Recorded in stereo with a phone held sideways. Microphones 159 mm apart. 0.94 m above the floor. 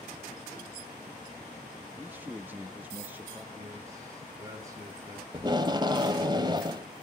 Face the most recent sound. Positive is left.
turn(degrees=-30)  # may be behind; listen again after turning